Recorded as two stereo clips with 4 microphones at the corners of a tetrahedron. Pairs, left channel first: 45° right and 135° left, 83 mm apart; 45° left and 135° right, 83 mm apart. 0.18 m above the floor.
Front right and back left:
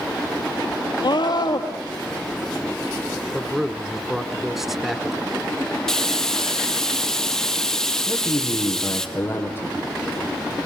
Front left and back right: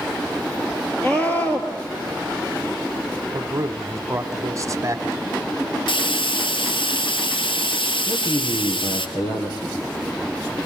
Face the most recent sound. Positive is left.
turn(degrees=15)